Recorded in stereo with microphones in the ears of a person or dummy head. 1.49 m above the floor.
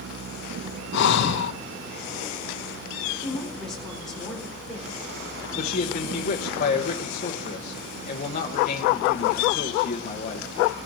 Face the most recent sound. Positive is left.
turn(degrees=45)  # may be behind; listen again after turning